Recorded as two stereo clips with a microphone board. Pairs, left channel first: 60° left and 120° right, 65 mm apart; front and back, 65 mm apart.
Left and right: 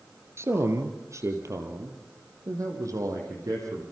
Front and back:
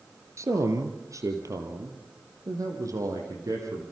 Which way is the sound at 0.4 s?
155° right.